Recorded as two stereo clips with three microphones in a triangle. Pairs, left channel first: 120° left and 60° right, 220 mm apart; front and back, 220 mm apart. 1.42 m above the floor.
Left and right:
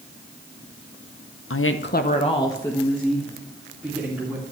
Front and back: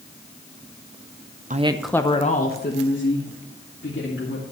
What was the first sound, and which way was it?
A woman speaking, 125° left.